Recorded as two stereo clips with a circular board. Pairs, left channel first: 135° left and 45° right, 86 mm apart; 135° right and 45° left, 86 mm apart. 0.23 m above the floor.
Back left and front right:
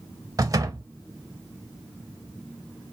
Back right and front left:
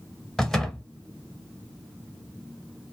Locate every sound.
0.4 s a door slam: 50° right, 0.8 m